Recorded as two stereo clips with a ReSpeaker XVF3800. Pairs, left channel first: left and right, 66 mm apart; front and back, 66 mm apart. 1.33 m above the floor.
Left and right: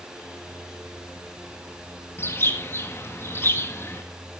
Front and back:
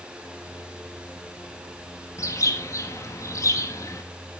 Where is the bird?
35° left, 1.7 m.